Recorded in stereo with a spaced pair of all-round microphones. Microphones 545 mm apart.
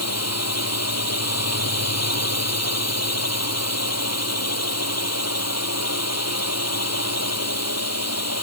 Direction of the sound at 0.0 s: 25° left (ahead or behind).